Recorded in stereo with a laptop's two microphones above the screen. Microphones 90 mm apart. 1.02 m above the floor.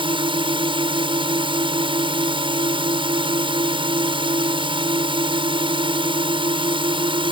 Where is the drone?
70° right (ahead or behind).